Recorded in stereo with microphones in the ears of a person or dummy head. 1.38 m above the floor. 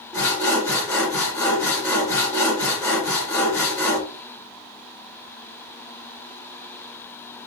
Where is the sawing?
20° left (ahead or behind), 4 m.